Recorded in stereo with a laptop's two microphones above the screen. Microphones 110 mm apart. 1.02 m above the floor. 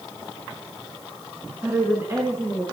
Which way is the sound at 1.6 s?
20° right (ahead or behind).